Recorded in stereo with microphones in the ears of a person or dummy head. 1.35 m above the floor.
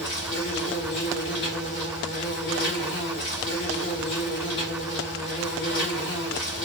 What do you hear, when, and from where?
0.0 s an insect: 60° left (ahead or behind), 1.5 m